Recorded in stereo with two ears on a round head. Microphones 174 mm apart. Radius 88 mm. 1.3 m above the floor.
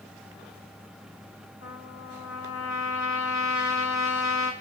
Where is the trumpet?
75° left (ahead or behind), 4 m.